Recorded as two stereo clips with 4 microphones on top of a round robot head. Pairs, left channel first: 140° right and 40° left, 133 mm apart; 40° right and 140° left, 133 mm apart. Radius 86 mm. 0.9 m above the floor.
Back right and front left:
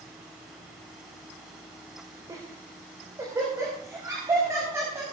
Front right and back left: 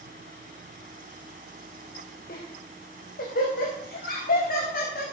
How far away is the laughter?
About 4 m.